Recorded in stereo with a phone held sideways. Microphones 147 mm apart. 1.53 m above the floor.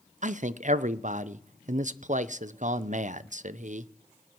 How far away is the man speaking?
About 0.6 m.